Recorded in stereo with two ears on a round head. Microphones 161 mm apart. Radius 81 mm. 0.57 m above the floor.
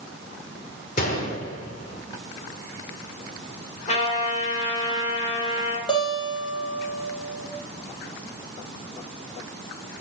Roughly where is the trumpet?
Left.